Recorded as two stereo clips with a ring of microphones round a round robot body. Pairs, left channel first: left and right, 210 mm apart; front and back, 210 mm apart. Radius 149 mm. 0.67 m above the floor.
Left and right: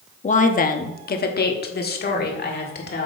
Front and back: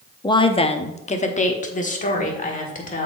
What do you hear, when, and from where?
0.2 s a woman speaking: 60° left, 0.7 m; by 3.1 s 50° left, 2 m